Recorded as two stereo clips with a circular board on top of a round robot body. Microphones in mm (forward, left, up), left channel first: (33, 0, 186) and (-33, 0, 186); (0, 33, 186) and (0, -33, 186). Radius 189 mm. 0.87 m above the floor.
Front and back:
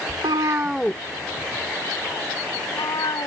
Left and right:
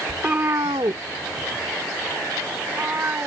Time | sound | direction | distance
0.1 | a cat meowing | 170° right | ?